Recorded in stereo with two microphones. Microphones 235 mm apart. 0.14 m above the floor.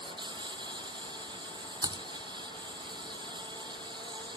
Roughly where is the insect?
Centre.